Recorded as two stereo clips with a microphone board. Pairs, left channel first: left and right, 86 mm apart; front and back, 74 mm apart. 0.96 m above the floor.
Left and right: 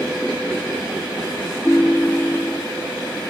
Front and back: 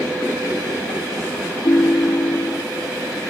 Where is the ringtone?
15° left, 1.2 m.